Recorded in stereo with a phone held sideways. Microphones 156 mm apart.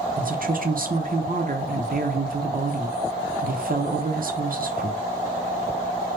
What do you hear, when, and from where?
0.2 s a woman speaking: 65° right (ahead or behind), 0.6 m